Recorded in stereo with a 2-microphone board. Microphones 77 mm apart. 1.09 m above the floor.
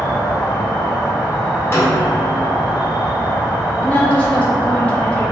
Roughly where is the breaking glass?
No breaking glass in this recording.